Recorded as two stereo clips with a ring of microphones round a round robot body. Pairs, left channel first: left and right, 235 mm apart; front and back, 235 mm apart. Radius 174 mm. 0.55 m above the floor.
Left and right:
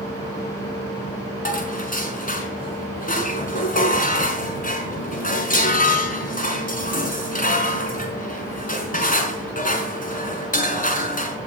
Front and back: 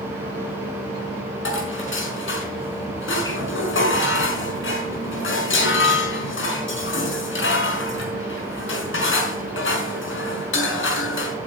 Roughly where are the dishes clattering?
Ahead left.